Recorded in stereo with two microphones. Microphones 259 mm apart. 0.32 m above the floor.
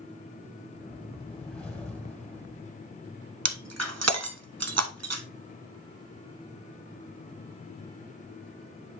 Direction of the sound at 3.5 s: 75° right (ahead or behind).